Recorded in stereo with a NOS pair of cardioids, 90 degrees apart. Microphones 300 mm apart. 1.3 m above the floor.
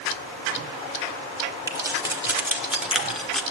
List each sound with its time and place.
1.7 s keys jangling: 10° right, 3.5 m; by 3.4 s 5° left, 2.5 m